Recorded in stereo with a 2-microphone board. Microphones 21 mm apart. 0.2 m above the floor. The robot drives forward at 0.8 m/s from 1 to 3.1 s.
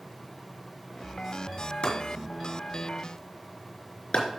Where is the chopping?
65° left (ahead or behind), 3.5 m.